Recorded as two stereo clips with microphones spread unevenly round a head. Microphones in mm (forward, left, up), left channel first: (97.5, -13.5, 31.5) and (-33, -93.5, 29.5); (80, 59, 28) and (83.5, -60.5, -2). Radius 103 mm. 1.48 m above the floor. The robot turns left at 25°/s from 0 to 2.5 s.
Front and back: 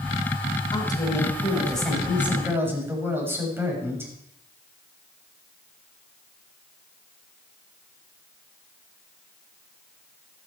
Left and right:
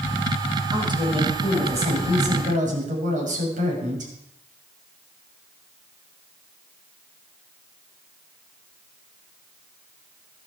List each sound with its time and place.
0.7 s a woman speaking: 30° right, 7 m; by 4.1 s 75° right, 7 m